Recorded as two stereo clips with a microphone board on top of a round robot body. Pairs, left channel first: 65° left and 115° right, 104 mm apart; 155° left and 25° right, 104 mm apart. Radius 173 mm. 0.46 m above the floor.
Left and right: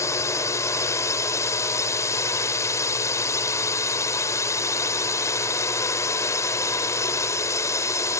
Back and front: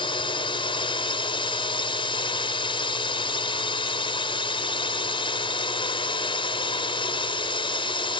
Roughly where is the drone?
Behind left.